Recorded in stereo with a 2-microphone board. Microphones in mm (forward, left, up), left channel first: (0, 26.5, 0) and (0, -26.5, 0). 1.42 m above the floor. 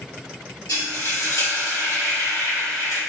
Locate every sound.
0.7 s frying: 80° left, 3 m